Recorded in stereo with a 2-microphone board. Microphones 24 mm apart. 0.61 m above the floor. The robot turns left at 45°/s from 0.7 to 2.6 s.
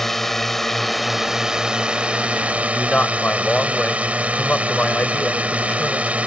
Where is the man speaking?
50° left (ahead or behind).